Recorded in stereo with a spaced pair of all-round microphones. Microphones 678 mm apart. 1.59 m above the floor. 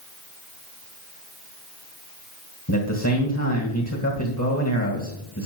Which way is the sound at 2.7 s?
25° left (ahead or behind).